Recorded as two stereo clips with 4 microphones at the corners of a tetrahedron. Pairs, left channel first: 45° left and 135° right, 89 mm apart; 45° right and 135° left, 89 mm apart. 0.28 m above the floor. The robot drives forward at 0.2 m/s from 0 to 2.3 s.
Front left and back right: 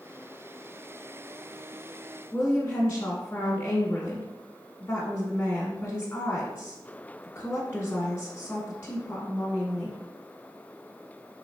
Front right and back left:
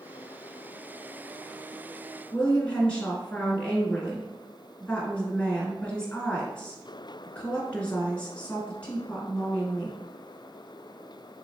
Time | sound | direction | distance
2.3 | a woman speaking | 20° left | 1.0 m